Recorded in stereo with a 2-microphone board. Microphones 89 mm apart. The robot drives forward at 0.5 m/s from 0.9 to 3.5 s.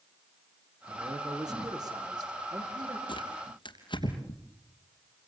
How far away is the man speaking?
About 6 m.